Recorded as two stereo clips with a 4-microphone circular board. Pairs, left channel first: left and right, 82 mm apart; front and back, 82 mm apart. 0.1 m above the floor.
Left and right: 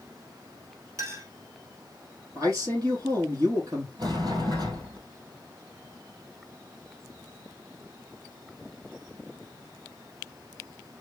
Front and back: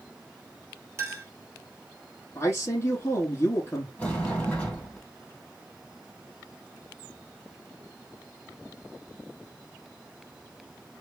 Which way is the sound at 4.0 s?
70° right.